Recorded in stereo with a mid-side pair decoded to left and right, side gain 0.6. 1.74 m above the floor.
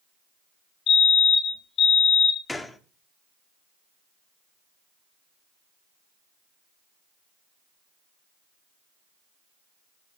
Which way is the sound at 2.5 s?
10° left.